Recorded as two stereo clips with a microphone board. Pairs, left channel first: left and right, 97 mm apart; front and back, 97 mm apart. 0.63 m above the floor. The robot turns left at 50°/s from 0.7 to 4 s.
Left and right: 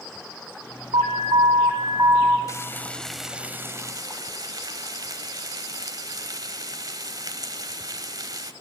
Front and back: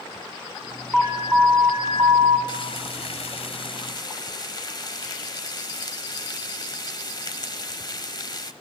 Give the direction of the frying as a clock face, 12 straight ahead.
11 o'clock.